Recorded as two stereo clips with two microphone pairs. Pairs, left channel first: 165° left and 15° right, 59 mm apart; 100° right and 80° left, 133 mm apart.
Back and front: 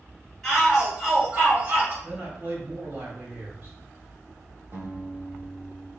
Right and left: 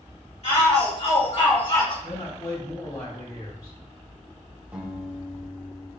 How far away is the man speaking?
About 2.5 m.